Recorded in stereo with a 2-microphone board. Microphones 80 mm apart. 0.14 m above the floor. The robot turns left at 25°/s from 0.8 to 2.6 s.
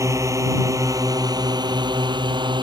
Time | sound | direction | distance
0.0 | a drone | 40° right (ahead or behind) | ?